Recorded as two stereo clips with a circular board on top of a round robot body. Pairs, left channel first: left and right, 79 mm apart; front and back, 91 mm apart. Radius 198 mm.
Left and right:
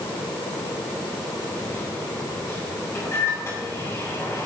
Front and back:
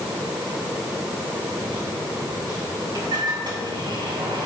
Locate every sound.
1.6 s a microwave: 145° left, 6 m